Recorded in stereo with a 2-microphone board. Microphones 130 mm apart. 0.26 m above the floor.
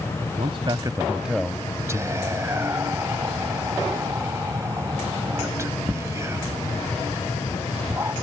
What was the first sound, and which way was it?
A man speaking, 50° right (ahead or behind).